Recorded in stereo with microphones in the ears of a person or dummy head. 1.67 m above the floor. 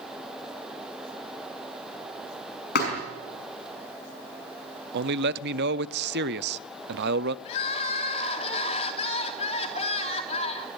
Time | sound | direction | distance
2.8 | a thud | 55° left (ahead or behind) | 5 m
4.9 | a man speaking | 60° right (ahead or behind) | 0.7 m
7.5 | crying | 40° left (ahead or behind) | 3 m